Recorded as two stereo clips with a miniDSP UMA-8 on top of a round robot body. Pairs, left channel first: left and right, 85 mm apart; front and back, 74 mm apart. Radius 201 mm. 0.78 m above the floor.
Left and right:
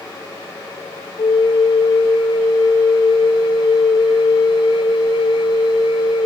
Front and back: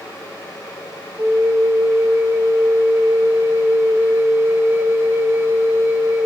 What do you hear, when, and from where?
1.2 s a flute: 120° left, 1.4 m